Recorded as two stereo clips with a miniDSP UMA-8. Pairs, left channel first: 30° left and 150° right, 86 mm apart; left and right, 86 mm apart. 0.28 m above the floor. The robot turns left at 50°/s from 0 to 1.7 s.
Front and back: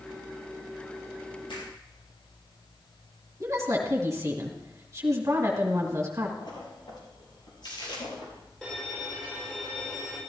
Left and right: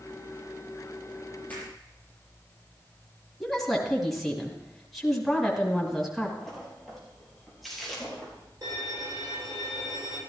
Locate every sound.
1.5 s a finger snap: 20° left, 6 m; by 1.7 s 10° left, 6 m
3.4 s a woman speaking: 175° left, 2 m
6.4 s a splash: straight ahead, 4.5 m
8.6 s a violin: 50° right, 5 m